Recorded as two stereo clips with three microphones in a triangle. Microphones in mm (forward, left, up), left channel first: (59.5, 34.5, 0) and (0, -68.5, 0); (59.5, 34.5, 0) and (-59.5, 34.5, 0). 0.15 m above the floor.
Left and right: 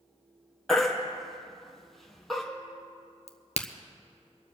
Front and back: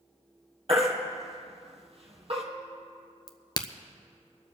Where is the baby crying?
150° left, 2.5 m.